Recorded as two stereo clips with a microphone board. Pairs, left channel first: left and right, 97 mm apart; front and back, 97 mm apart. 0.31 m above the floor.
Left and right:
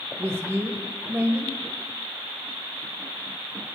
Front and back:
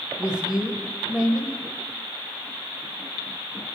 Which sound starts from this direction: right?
A woman speaking, at 0.2 s.